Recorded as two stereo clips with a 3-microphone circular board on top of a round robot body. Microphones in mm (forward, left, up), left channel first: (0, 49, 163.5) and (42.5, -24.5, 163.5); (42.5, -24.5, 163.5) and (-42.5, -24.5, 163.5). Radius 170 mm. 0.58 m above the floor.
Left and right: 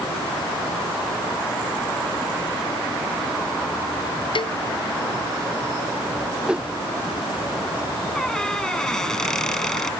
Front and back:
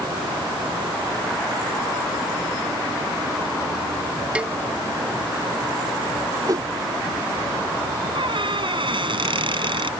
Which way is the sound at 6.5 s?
140° right.